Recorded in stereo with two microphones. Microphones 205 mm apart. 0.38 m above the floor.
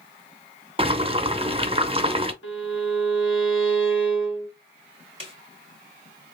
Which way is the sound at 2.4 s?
85° left.